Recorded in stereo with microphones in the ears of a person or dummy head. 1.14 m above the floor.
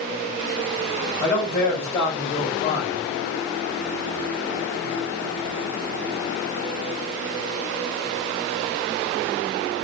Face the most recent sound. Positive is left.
turn(degrees=30)  # may be behind; listen again after turning